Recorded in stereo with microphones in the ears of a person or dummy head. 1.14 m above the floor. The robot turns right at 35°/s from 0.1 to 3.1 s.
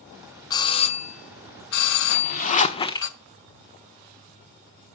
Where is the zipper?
125° left, 1.1 m; by 3.1 s 160° left, 1.1 m.